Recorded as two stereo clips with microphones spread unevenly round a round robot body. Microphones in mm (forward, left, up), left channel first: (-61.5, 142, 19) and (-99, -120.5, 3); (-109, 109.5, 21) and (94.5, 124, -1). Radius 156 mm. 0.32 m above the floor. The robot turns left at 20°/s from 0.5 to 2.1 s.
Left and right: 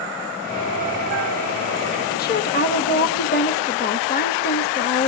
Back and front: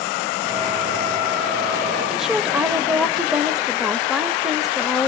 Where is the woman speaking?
80° left, 1.0 m.